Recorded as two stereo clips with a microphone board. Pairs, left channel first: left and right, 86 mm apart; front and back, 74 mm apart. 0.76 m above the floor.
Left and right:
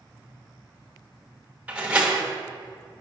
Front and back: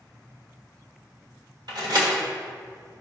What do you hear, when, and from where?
1.7 s a door slam: 165° right, 1.4 m